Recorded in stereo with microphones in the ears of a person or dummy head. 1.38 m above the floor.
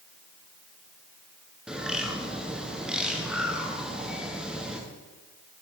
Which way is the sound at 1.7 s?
5° right (ahead or behind).